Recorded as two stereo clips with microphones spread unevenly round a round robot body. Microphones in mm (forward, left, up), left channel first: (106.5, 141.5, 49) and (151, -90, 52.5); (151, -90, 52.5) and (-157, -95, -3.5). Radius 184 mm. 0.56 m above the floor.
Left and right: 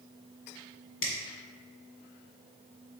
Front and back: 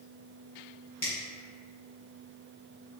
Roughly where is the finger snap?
Left.